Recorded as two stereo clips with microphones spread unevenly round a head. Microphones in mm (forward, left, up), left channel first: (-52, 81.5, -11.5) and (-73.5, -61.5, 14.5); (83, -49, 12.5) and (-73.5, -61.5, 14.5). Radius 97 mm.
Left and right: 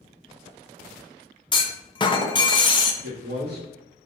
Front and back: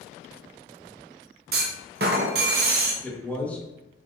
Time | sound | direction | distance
1.5 | a clunk | 145° left | 0.9 m
3.0 | a man speaking | 75° right | 2.5 m